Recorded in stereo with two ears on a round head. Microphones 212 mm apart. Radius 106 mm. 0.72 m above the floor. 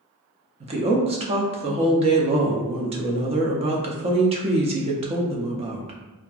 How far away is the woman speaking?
About 0.5 m.